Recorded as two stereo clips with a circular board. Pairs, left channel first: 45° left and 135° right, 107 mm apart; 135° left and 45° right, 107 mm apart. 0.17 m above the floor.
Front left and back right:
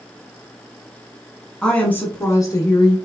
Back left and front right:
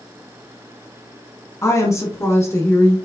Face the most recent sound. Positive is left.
turn(degrees=75)